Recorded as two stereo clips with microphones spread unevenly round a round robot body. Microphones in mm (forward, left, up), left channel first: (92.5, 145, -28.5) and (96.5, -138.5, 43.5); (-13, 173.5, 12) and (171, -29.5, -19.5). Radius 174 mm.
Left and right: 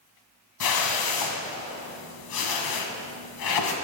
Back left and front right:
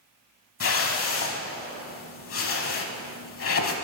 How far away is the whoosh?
About 1.1 m.